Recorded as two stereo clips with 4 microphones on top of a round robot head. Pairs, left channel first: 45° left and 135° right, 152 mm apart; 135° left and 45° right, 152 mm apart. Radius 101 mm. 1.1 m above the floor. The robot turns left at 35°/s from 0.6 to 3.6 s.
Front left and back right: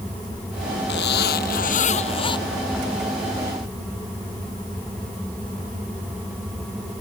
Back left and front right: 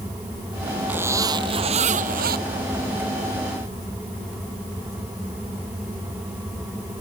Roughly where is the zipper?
Ahead left.